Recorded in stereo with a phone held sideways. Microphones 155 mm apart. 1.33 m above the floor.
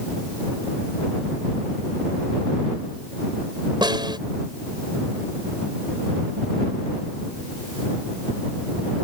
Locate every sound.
3.8 s a snare drum: 30° right (ahead or behind)